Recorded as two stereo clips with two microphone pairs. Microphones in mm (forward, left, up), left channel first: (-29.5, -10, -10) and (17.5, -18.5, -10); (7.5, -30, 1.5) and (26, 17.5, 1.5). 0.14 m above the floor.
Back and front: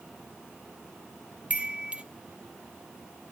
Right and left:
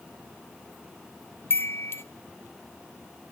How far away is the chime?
About 0.6 m.